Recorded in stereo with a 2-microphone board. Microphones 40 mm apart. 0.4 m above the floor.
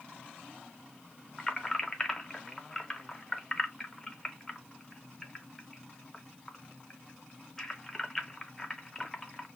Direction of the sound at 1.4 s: 10° left (ahead or behind).